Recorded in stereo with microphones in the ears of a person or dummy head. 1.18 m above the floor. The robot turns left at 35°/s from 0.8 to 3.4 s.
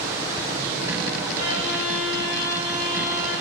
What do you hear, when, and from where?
1.4 s a violin: 65° right, 3.5 m; by 3.3 s 130° right, 3.5 m